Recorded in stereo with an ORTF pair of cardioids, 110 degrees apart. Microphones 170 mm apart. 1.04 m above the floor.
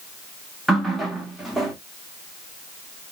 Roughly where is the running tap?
Ahead.